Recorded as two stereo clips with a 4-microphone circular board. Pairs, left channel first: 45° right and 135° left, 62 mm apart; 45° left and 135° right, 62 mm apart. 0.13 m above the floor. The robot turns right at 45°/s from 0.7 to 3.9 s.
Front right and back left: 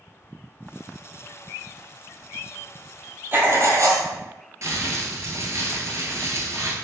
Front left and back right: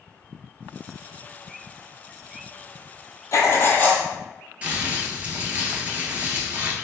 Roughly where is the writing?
Left.